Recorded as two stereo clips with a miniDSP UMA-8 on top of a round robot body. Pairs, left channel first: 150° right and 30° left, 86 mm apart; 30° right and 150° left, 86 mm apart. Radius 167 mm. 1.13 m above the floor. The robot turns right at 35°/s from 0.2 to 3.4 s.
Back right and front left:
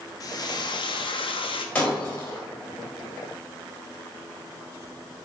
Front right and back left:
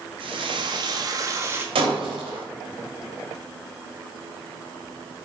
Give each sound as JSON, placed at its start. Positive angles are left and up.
{"t": 0.2, "sound": "frying", "azimuth_deg": 165, "distance_m": 1.6}
{"t": 1.8, "sound": "breaking glass", "azimuth_deg": 135, "distance_m": 4.0}